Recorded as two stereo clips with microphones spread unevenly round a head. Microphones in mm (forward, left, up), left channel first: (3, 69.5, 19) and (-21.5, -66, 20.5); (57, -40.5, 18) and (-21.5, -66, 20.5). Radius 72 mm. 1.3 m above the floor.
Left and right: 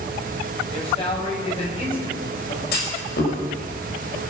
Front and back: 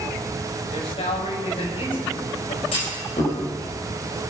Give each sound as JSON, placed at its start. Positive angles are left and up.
{"t": 0.7, "sound": "a man speaking", "azimuth_deg": 25, "distance_m": 6.0}
{"t": 2.7, "sound": "a clunk", "azimuth_deg": 55, "distance_m": 5.0}